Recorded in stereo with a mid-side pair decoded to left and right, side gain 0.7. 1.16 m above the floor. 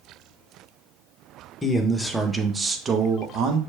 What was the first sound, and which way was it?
A man speaking, 15° left.